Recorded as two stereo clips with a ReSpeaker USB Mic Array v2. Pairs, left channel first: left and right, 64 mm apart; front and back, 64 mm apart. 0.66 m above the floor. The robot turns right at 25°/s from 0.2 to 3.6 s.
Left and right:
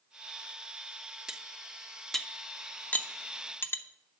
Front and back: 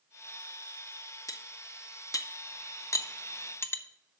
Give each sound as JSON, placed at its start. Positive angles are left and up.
{"t": 1.3, "sound": "cutlery clinking", "azimuth_deg": -15, "distance_m": 0.6}